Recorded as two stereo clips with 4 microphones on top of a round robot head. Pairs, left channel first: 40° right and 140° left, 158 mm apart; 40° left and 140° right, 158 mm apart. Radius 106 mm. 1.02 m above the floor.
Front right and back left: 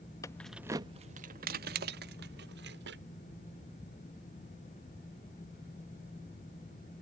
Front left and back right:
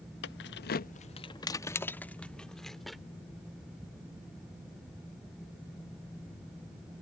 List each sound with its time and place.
0.2 s keys jangling: 35° left; by 3.0 s 130° left